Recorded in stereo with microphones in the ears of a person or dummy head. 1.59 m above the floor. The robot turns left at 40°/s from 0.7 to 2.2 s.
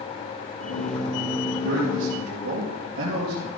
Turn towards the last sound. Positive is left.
turn(degrees=-85)